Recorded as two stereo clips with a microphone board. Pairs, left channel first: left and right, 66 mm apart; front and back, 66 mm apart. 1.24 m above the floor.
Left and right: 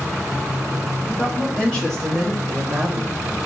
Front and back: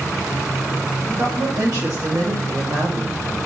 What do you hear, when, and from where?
1.0 s a woman speaking: 155° left, 2.5 m; by 3.1 s 150° right, 1.6 m